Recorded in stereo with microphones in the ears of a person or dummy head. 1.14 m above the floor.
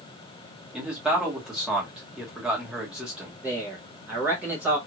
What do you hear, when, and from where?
0.7 s a man speaking: 5° right (ahead or behind), 1.3 m
3.4 s a man speaking: 10° right (ahead or behind), 0.9 m